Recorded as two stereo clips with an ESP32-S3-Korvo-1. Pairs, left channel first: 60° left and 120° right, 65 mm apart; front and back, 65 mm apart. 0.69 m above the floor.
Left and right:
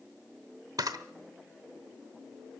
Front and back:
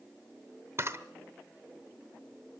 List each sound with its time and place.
0.8 s a camera shutter: 130° right, 0.9 m